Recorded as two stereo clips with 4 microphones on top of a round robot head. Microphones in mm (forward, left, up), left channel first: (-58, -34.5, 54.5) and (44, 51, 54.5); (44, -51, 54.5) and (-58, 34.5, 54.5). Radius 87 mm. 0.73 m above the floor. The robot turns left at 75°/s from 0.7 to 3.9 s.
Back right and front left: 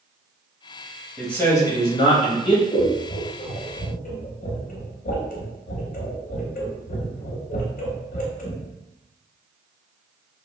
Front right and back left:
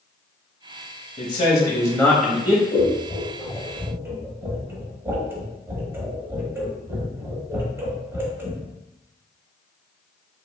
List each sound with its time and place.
1.2 s a man speaking: 50° right, 0.7 m; by 2.6 s 160° right, 0.7 m
2.7 s scissors: 55° right, 0.8 m; by 8.6 s 145° right, 0.8 m